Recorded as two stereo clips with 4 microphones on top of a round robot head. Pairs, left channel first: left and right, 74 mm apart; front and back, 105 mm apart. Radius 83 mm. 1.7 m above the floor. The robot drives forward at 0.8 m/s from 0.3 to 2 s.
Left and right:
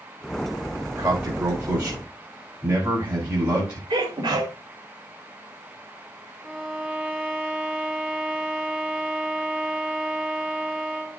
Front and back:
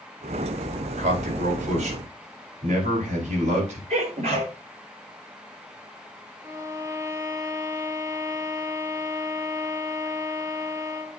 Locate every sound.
1.0 s a man speaking: 165° right, 4.5 m
3.9 s a sneeze: 150° right, 5 m
6.4 s a violin: 175° left, 0.9 m